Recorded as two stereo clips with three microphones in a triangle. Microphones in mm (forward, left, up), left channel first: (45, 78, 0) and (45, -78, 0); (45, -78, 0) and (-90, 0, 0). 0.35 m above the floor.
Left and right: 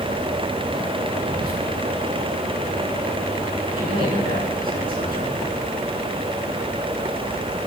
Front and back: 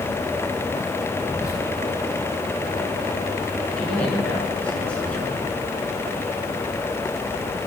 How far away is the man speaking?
About 5 m.